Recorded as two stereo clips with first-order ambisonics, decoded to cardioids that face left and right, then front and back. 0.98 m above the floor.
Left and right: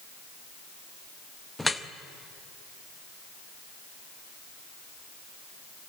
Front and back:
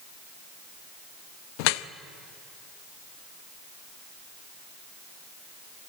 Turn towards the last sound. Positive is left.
turn(degrees=5)